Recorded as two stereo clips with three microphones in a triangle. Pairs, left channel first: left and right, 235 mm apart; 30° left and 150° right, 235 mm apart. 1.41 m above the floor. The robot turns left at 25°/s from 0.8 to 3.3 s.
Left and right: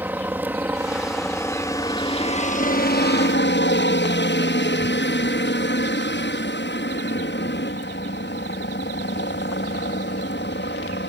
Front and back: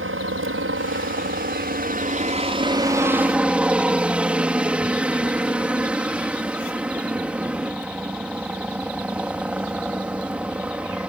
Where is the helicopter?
170° right; by 11.1 s 125° left.